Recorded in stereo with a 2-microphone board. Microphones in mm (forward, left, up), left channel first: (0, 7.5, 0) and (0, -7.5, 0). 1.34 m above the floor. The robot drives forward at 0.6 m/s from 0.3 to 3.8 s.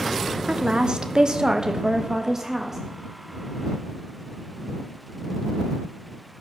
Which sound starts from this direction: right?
A woman speaking, at 0.5 s.